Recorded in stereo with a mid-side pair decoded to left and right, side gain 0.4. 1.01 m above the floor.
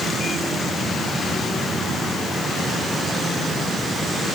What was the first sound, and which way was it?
Only background noise.